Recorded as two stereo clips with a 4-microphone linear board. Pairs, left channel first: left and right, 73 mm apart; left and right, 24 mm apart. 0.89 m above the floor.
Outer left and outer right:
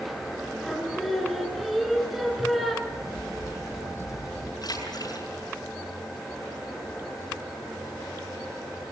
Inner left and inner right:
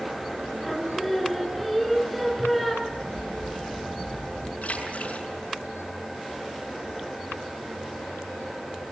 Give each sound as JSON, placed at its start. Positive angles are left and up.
{"t": 0.6, "sound": "singing", "side_deg": 0, "distance_m": 5.0}
{"t": 2.9, "sound": "a crack", "side_deg": 50, "distance_m": 4.5}
{"t": 4.6, "sound": "a splash", "side_deg": 60, "distance_m": 6.5}